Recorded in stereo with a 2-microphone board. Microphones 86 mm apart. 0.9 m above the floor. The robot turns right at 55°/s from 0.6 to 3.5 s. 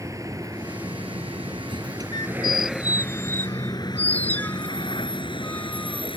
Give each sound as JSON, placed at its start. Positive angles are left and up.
{"t": 0.0, "sound": "a vehicle", "side_deg": -40}
{"t": 2.1, "sound": "a squeak", "side_deg": 55}